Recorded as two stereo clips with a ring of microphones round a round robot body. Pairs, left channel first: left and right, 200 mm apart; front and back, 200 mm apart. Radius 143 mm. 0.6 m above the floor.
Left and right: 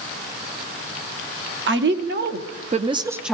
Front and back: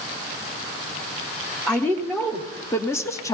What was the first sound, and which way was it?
A woman speaking, 85° right.